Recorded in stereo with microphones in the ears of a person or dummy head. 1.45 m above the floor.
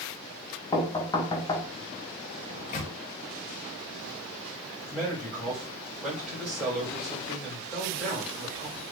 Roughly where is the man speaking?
Centre.